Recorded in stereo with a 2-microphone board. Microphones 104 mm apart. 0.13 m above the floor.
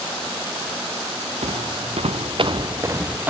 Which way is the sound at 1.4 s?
70° right (ahead or behind).